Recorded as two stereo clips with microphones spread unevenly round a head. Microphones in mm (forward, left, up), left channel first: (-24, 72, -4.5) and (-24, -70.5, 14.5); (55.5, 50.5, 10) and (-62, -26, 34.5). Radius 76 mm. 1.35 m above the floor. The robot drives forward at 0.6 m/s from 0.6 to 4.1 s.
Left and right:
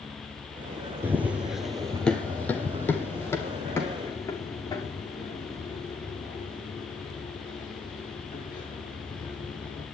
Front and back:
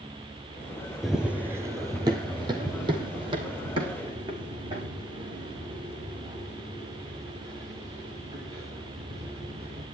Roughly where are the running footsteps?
Right.